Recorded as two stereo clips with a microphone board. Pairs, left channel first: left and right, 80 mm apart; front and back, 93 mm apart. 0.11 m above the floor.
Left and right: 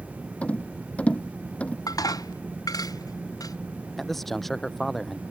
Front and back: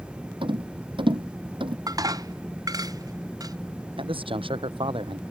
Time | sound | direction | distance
0.4 | a rattle | 165° left | ?
1.9 | dishes clattering | 130° left | ?
4.0 | a man speaking | 175° left | ?